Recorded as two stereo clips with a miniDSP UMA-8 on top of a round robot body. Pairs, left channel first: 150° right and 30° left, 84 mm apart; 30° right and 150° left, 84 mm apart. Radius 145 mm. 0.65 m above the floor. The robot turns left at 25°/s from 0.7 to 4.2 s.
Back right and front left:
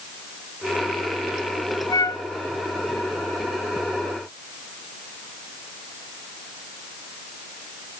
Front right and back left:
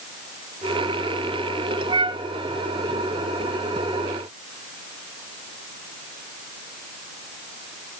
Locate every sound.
1.9 s a flute: 170° left, 1.2 m; by 2.2 s 160° left, 1.2 m